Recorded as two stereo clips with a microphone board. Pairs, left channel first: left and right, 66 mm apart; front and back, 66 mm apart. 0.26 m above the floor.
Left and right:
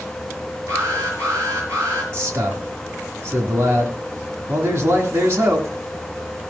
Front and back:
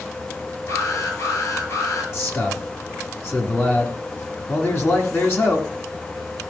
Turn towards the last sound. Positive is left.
turn(degrees=-45)